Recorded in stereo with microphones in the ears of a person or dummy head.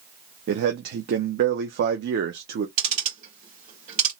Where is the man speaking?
60° right (ahead or behind), 0.6 m.